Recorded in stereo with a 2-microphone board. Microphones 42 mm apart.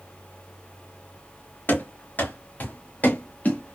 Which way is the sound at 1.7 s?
45° left (ahead or behind).